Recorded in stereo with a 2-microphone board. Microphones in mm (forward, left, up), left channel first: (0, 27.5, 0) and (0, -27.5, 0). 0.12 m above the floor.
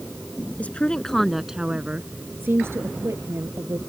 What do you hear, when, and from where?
0.6 s a woman speaking: 30° left (ahead or behind); by 3.8 s 65° right (ahead or behind)